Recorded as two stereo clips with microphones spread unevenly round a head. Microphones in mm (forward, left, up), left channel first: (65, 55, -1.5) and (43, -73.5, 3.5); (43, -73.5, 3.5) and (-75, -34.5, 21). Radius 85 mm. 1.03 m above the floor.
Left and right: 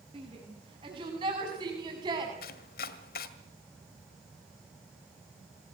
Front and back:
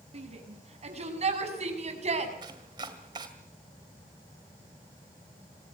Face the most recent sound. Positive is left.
turn(degrees=95)